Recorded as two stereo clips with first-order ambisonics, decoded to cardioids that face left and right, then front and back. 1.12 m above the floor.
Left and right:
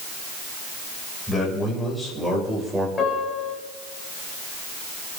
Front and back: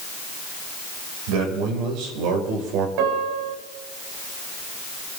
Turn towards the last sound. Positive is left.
turn(degrees=160)